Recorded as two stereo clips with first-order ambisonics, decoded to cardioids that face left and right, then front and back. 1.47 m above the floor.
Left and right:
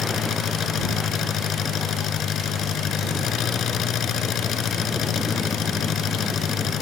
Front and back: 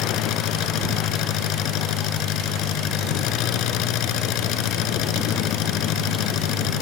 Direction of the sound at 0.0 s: 35° left.